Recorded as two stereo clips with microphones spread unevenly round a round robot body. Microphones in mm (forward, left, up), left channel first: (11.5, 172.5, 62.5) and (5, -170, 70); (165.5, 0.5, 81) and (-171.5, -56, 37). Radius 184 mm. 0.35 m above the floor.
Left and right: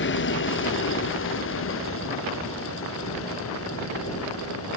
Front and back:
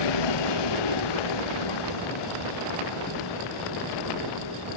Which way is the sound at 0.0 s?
30° left.